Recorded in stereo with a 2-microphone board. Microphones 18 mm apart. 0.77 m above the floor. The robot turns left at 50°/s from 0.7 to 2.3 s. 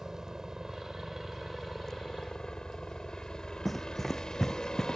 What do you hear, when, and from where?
0.0 s a helicopter: 145° right; by 5.0 s 135° left
3.6 s running footsteps: 5° left (ahead or behind); by 5.0 s 20° left (ahead or behind)